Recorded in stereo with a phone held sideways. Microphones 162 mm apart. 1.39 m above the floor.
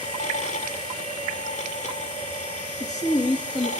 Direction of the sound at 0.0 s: 50° left (ahead or behind).